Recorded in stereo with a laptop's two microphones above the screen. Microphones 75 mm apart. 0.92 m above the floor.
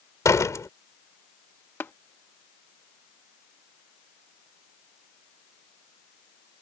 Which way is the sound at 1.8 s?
30° left (ahead or behind).